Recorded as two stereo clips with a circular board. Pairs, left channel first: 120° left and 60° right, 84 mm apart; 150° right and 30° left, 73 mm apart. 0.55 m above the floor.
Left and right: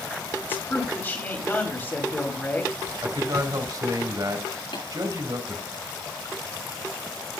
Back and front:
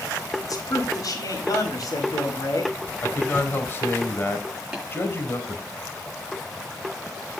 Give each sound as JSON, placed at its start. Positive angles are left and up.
{"t": 0.4, "sound": "a man speaking", "azimuth_deg": -175, "distance_m": 4.0}
{"t": 3.0, "sound": "a man speaking", "azimuth_deg": -95, "distance_m": 2.5}
{"t": 4.7, "sound": "tapping", "azimuth_deg": 115, "distance_m": 8.0}